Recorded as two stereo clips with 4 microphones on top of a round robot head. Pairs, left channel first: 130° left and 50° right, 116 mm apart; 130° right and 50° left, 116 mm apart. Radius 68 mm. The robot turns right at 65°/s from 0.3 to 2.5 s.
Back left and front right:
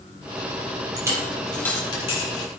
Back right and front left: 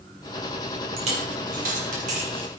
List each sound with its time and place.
1.0 s a dropped coin: 10° left, 5 m; by 2.5 s 110° left, 5 m